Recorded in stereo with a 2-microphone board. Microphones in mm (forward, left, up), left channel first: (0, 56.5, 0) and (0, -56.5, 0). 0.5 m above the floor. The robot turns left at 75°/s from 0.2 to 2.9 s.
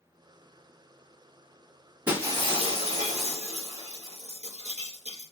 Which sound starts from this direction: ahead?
Breaking glass, at 2.1 s.